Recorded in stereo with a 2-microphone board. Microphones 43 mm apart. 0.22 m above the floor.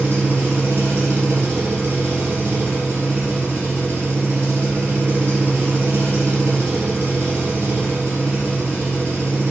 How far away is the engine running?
About 1.1 m.